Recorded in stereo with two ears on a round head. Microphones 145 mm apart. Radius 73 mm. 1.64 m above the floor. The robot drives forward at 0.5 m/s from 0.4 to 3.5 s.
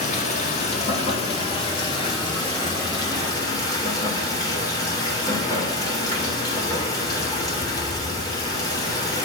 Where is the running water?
45° left (ahead or behind), 1.8 m; by 9.2 s 25° left (ahead or behind), 3 m.